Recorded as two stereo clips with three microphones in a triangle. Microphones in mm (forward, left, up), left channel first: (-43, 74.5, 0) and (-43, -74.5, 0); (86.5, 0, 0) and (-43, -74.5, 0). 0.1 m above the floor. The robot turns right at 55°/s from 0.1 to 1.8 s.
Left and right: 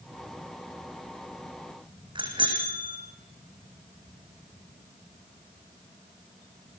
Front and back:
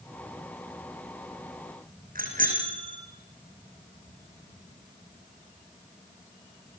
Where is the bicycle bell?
145° right, 4.5 m.